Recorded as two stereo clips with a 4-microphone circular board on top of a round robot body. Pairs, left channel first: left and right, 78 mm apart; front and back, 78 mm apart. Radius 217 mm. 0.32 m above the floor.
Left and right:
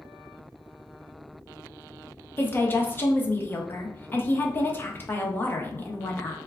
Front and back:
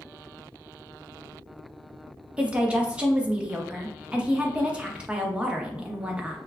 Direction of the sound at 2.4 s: 120° left.